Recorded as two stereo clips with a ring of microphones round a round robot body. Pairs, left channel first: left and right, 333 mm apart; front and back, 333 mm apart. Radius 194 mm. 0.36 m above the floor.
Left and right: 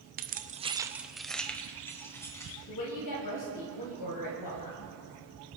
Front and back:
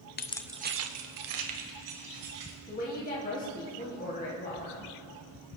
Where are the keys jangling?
45° right, 0.8 m; by 2.5 s 170° left, 3 m.